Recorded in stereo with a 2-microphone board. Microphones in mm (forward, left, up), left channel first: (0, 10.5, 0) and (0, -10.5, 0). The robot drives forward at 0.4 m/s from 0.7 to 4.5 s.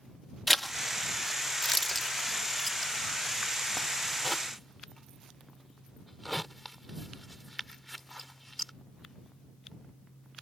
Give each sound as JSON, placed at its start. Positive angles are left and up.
{"t": 0.5, "sound": "a zipper", "side_deg": 0}